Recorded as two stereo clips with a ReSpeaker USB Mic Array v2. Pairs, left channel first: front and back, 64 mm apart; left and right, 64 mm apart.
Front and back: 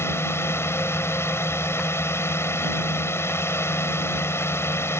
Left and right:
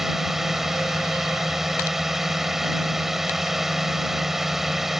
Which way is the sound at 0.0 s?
5° right.